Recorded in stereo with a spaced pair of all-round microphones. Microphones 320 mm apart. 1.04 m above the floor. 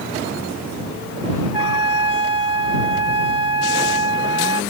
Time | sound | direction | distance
1.5 | a trumpet | 85° left | ?